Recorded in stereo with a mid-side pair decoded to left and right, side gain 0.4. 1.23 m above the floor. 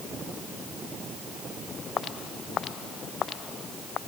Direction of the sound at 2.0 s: 65° left.